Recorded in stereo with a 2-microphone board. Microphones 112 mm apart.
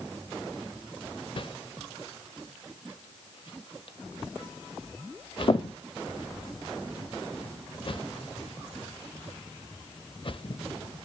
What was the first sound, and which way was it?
A whoosh, 50° left (ahead or behind).